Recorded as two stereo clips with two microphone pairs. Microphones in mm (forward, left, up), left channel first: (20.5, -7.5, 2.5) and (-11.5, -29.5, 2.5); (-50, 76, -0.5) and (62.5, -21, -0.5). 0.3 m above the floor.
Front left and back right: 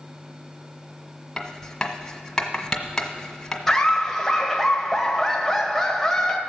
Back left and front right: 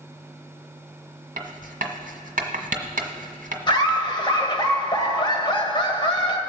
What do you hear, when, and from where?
1.4 s writing: 40° right, 1.3 m
3.7 s laughter: 115° left, 1.7 m